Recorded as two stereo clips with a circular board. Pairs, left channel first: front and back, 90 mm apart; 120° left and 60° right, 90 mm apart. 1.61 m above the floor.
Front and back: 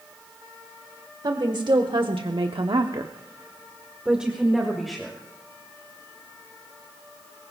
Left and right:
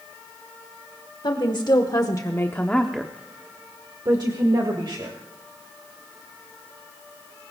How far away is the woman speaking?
About 1.7 m.